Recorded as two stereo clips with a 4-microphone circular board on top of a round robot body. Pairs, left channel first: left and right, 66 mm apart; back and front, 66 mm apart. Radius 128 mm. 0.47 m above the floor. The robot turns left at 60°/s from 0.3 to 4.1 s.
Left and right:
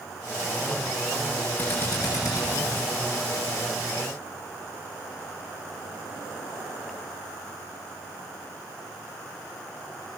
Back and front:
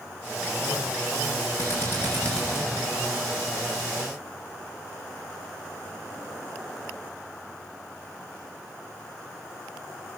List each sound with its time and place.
1.6 s a drill: 150° left, 9.5 m; by 2.9 s 75° left, 9.5 m